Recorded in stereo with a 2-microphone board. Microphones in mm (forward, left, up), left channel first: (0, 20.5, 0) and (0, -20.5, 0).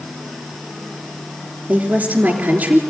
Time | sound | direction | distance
1.7 | a woman speaking | 45° right (ahead or behind) | 3.5 m